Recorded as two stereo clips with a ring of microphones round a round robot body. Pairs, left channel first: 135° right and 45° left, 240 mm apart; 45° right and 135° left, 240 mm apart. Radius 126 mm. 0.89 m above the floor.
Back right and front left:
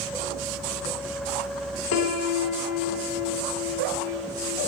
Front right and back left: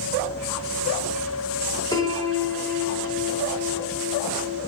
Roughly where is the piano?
Behind right.